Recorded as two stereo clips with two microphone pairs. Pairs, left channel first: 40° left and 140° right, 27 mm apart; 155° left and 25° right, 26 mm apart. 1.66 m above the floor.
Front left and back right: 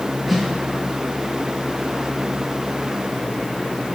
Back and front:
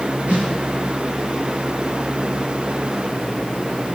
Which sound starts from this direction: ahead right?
A snare drum, at 0.3 s.